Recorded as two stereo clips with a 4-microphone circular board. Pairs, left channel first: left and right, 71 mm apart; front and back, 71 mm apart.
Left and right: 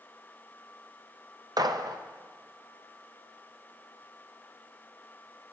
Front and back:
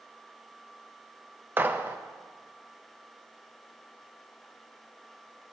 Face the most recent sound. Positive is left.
turn(degrees=-115)